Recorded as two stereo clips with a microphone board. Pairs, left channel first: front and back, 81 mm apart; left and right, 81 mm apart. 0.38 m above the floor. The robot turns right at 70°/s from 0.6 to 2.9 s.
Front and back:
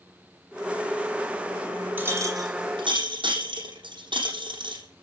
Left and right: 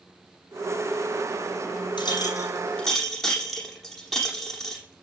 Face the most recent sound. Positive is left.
turn(degrees=180)